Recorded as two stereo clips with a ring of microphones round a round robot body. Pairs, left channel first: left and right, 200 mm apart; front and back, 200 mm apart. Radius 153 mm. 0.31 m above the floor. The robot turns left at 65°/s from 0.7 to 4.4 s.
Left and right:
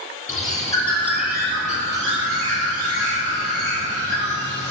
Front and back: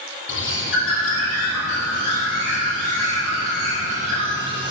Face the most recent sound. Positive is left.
turn(degrees=150)